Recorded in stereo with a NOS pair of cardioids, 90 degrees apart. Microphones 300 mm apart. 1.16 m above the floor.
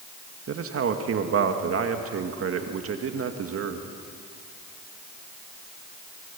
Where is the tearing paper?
I don't hear tearing paper.